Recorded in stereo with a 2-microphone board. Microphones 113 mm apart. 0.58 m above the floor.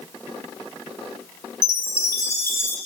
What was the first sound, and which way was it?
A chime, 25° left (ahead or behind).